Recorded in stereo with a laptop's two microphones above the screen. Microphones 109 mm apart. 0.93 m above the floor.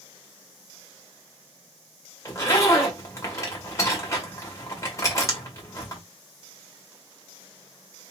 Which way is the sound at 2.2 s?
30° left (ahead or behind).